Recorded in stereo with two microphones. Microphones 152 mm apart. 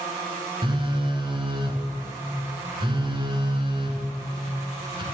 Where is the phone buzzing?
35° right (ahead or behind), 1.0 m.